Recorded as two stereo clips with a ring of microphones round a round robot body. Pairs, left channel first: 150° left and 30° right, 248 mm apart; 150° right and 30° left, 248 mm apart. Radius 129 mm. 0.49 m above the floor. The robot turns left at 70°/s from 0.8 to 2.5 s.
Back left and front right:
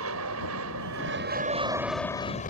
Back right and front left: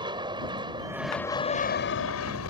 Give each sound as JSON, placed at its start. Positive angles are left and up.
{"t": 0.0, "sound": "an aircraft", "azimuth_deg": -40}